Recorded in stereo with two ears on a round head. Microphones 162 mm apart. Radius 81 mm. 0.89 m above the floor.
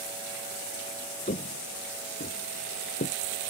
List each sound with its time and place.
1.3 s footsteps: 40° left (ahead or behind); by 3.2 s 50° left (ahead or behind)